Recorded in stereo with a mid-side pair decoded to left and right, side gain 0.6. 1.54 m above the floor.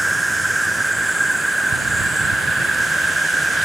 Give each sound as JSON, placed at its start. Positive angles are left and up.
{"t": 0.0, "sound": "an insect", "azimuth_deg": -10}